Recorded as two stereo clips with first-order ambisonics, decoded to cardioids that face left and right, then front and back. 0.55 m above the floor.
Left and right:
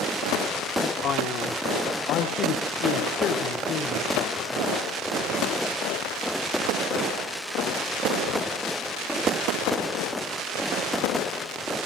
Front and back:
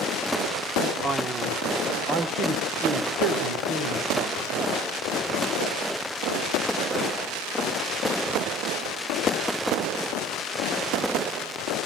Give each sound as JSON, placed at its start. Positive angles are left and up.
{"t": 1.0, "sound": "a man speaking", "azimuth_deg": 115, "distance_m": 1.0}